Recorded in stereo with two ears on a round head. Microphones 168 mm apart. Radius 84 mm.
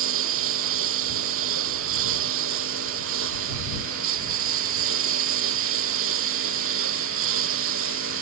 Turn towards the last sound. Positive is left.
turn(degrees=-85)